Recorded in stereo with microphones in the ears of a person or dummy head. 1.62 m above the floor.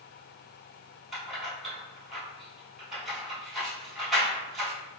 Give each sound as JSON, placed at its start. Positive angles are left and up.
{"t": 1.1, "sound": "keys jangling", "side_deg": 0, "distance_m": 1.2}